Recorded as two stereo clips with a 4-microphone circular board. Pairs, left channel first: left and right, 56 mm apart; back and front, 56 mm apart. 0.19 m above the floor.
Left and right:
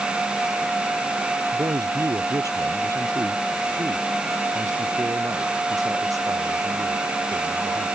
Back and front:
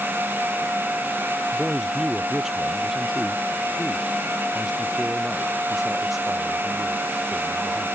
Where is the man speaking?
85° right; by 7.9 s 90° right.